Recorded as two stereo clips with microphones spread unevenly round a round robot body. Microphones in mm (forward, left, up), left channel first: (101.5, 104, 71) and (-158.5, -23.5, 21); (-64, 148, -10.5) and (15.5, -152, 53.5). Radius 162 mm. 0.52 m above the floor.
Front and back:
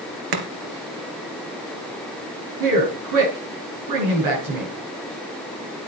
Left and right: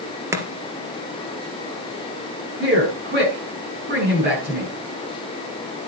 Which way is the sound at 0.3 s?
155° right.